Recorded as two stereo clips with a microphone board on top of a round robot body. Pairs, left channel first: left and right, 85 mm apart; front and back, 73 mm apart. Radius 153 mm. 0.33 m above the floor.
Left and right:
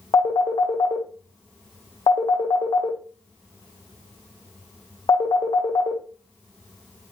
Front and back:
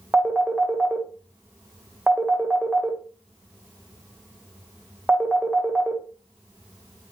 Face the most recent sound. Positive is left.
turn(degrees=105)